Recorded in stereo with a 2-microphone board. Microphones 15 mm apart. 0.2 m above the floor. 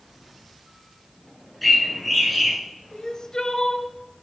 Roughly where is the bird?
Centre.